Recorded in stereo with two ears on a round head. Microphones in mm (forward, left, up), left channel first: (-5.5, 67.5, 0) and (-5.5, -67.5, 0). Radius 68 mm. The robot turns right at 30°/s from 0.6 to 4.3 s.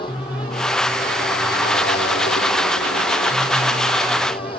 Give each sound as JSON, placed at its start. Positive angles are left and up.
{"t": 0.0, "sound": "a motorcycle", "azimuth_deg": 35}